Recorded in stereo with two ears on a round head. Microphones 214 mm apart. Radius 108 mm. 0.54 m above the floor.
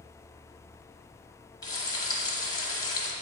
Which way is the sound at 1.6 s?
15° left (ahead or behind).